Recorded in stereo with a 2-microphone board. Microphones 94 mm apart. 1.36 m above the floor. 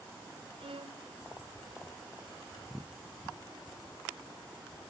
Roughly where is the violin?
Right.